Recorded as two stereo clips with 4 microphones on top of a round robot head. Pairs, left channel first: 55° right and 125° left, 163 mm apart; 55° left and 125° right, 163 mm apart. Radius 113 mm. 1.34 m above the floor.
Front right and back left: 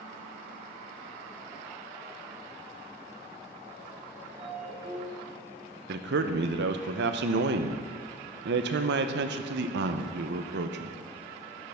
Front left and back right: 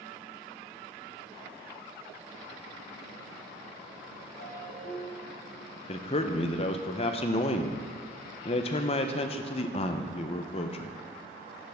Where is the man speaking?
110° left, 0.7 m.